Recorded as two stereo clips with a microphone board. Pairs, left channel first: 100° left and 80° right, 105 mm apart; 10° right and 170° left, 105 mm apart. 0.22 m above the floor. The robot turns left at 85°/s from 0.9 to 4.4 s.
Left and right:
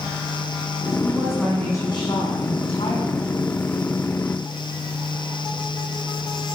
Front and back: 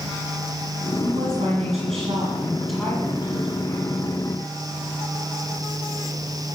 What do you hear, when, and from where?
1.0 s a woman speaking: 135° right, 9.5 m; by 4.0 s 25° right, 9.5 m